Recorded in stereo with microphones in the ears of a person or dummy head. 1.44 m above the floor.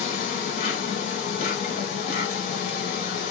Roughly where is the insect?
Left.